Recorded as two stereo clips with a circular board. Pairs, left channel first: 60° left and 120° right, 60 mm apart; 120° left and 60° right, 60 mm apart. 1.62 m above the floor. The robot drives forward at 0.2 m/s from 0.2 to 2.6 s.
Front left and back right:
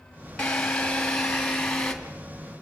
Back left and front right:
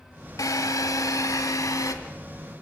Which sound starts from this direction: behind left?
A drill, at 0.4 s.